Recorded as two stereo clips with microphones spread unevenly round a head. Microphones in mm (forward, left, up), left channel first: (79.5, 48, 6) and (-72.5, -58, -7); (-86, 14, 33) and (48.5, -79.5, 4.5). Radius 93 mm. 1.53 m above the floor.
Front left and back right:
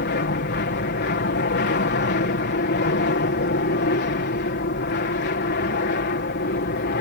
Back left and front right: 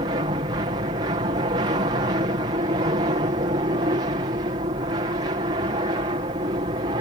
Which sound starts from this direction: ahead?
An aircraft, at 0.0 s.